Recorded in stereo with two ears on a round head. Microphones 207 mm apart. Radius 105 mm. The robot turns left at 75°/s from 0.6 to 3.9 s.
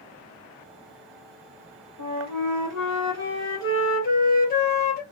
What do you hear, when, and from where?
2.0 s a flute: 75° right, 0.9 m; by 5.0 s 140° left, 0.9 m